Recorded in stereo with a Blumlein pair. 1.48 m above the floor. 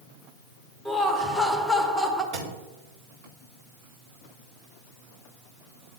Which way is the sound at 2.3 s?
55° right.